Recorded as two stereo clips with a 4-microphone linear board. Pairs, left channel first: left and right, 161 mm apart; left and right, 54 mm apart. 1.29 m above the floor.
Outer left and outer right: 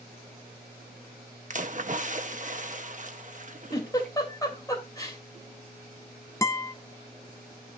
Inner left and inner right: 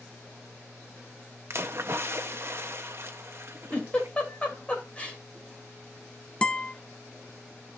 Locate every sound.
1.5 s a splash: 50° right (ahead or behind), 0.8 m
3.7 s a giggle: 25° left (ahead or behind), 3 m
6.4 s a guitar: 20° left (ahead or behind), 0.6 m